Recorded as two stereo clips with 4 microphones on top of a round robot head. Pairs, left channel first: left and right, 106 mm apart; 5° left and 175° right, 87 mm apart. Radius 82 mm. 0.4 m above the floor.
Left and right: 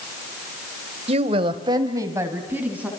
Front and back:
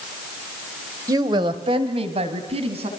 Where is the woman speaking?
120° right, 1.9 m; by 2.9 s 170° right, 3.5 m.